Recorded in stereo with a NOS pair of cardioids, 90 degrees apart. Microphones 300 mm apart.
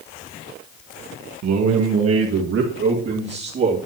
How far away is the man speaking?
About 1.4 m.